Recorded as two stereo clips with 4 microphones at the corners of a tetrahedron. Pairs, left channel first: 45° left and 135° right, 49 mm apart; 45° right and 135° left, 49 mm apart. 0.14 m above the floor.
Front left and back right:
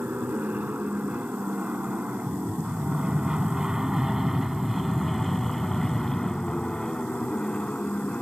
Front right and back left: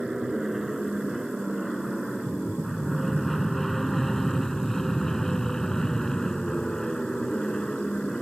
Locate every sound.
0.0 s an aircraft: 145° right; by 8.2 s 15° left